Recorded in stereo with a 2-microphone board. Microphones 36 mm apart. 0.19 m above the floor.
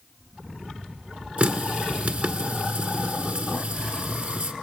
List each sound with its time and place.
1.4 s a running tap: 40° right (ahead or behind), 1.4 m